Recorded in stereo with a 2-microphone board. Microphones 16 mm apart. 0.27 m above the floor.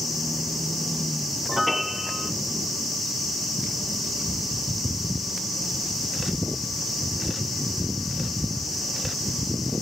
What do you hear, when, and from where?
1.5 s a piano: centre (ahead or behind)